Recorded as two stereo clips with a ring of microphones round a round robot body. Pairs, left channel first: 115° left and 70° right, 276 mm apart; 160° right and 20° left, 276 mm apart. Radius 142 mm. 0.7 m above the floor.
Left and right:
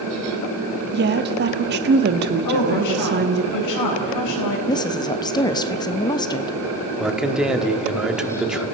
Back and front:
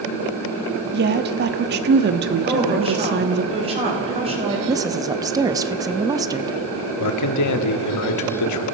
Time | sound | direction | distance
0.9 | a woman speaking | 25° right | 1.2 m
2.4 | a woman speaking | 90° left | 4 m
4.7 | a woman speaking | 70° left | 0.8 m
7.0 | a man speaking | 155° right | 1.6 m